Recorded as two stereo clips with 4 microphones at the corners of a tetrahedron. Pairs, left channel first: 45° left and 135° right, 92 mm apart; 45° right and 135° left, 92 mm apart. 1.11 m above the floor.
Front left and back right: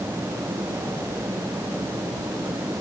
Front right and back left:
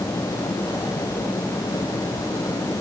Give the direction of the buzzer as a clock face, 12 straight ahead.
No buzzer in this recording.